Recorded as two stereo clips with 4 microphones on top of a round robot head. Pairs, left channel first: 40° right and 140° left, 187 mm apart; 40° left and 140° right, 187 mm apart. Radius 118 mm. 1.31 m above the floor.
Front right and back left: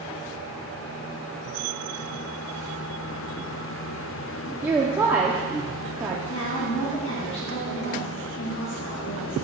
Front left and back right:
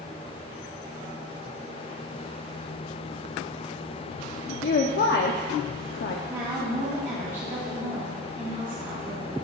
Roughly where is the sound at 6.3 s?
Ahead right.